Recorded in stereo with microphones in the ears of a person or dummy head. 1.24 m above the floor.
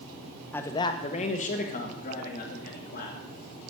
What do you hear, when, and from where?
0.5 s a man speaking: 10° left (ahead or behind), 0.6 m; by 3.2 s 55° left (ahead or behind), 2.5 m